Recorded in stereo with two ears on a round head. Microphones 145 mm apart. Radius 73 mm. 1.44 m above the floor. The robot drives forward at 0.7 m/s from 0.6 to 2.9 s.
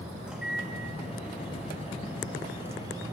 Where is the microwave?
5° right (ahead or behind), 2 m; by 3.1 s 20° right (ahead or behind), 0.7 m.